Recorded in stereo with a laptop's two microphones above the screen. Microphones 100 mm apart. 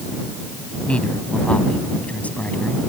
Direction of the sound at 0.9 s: 10° left (ahead or behind).